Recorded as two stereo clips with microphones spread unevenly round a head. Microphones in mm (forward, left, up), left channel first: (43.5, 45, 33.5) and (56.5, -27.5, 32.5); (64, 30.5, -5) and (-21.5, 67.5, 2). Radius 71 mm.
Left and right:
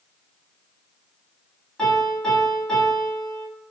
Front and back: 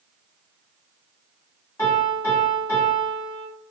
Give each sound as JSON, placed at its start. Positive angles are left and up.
{"t": 1.8, "sound": "a piano", "azimuth_deg": 30, "distance_m": 1.4}